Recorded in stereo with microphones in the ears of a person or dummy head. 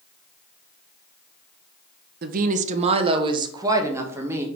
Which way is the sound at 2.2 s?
60° right (ahead or behind).